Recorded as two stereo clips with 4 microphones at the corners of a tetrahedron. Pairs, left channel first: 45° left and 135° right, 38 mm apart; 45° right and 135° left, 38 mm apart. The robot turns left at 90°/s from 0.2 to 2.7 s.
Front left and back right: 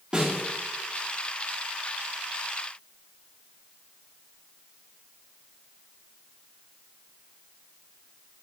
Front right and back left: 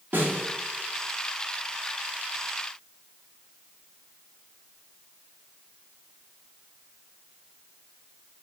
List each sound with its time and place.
0.1 s a snare drum: 160° left, 1.8 m; by 0.4 s 140° left, 1.8 m